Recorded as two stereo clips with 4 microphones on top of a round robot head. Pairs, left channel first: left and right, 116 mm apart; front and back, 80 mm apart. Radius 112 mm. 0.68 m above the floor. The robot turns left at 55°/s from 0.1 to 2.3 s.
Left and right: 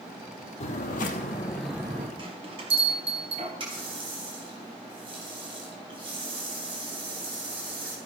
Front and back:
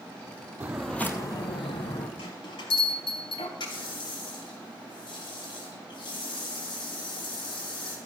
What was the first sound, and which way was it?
Footsteps, 110° left.